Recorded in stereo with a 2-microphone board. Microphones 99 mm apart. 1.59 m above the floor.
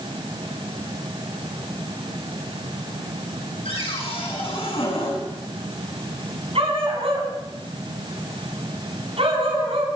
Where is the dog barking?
80° right, 6.5 m.